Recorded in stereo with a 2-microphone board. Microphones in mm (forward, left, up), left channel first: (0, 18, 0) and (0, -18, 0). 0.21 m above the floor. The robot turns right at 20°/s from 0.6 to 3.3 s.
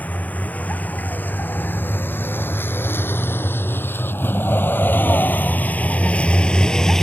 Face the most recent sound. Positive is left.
turn(degrees=15)  # may be behind; listen again after turning